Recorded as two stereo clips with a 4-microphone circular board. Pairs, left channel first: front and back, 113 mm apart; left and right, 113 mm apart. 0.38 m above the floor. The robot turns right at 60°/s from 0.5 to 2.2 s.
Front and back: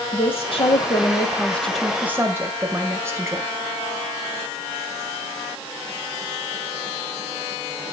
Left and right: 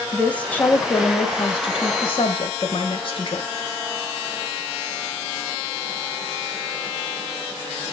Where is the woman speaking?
15° left, 2 m; by 3.5 s 115° left, 2 m.